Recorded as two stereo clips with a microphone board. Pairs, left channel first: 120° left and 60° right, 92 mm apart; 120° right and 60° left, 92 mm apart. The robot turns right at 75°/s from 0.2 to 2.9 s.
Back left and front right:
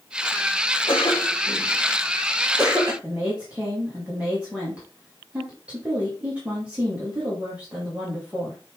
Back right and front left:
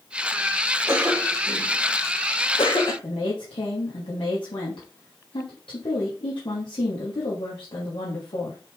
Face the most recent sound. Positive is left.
turn(degrees=-135)